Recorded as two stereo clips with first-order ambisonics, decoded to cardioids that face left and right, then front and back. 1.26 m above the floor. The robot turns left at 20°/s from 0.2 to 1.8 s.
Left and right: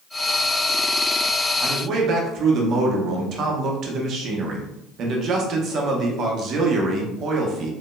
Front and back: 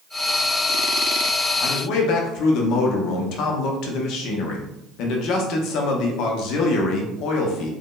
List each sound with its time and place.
1.6 s a man speaking: 35° right, 0.9 m